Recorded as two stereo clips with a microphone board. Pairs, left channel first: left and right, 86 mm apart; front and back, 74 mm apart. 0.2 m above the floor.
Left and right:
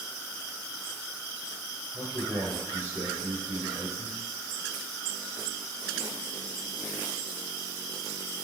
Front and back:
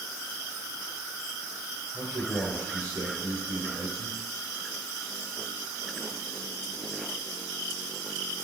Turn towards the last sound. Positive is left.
turn(degrees=-155)